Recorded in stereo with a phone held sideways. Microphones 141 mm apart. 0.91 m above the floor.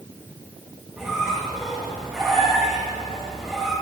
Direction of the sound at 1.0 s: 5° right (ahead or behind).